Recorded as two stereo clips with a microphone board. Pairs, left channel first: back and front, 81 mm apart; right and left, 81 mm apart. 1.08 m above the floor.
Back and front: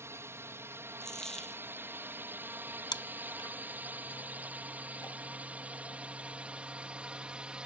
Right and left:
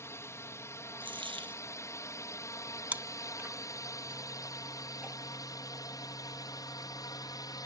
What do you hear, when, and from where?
0.0 s a drone: 45° right; by 7.7 s 75° right
1.0 s a dropped coin: 95° left
2.9 s chewing: 160° left